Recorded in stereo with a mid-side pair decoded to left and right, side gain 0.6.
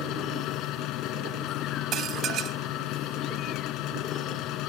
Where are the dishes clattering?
50° right.